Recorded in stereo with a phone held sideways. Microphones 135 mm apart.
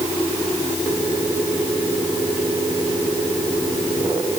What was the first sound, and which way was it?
Only background noise.